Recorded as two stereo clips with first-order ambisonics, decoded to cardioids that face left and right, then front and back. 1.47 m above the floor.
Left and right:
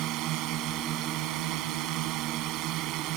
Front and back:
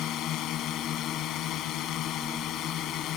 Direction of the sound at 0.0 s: 50° right.